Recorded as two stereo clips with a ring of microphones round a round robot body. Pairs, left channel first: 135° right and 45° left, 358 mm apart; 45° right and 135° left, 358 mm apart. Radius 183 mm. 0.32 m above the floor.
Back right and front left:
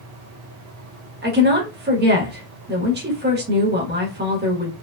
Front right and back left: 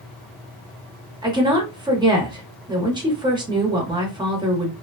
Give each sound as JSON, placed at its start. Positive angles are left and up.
{"t": 1.2, "sound": "a woman speaking", "azimuth_deg": 70, "distance_m": 1.0}